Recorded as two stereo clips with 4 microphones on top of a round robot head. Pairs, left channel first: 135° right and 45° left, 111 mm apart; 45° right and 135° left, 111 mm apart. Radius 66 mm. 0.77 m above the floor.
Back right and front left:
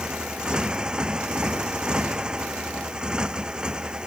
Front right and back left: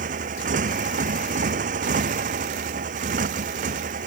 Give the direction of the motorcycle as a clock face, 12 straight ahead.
8 o'clock.